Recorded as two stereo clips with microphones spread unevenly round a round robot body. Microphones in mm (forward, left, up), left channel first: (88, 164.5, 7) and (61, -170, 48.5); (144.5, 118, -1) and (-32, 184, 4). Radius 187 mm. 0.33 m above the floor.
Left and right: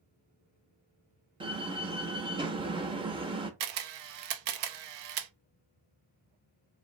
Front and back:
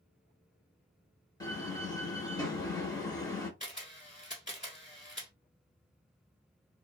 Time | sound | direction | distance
1.4 | a door slam | 25° right | 0.6 m
3.6 | a camera shutter | 90° right | 0.5 m